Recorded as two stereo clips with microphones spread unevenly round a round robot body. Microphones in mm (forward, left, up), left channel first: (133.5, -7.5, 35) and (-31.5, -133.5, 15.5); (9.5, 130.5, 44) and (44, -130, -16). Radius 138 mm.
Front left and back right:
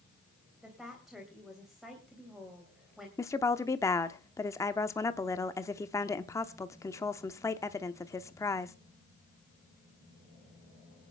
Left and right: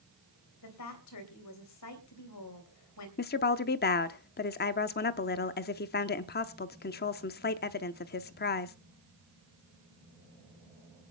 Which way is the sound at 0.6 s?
130° left.